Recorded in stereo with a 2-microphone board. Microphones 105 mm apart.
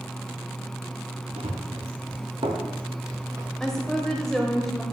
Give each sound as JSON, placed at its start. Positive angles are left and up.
{"t": 1.4, "sound": "running footsteps", "side_deg": -80, "distance_m": 2.5}
{"t": 3.6, "sound": "a woman speaking", "side_deg": 5, "distance_m": 1.1}